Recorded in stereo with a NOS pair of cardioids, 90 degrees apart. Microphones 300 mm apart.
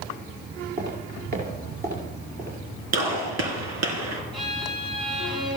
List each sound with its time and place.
0.8 s footsteps: 30° right, 6 m
2.9 s a gunshot: 70° right, 3 m
4.3 s a violin: 15° right, 5.5 m